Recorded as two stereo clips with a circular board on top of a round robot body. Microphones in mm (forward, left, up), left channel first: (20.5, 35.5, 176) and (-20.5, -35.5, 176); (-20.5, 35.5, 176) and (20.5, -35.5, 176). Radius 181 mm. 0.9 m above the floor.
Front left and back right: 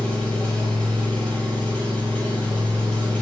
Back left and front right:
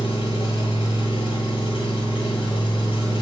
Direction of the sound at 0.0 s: 140° left.